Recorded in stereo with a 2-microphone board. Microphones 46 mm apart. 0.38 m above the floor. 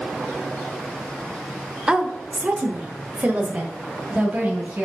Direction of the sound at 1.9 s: 15° right (ahead or behind).